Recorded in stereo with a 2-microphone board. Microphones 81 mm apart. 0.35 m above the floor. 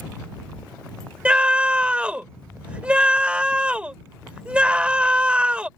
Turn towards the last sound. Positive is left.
turn(degrees=-15)  # may be behind; listen again after turning